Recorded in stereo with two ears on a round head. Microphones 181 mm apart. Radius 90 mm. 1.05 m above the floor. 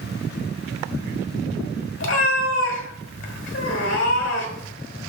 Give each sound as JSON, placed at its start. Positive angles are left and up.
{"t": 2.0, "sound": "a cat meowing", "side_deg": 65, "distance_m": 1.7}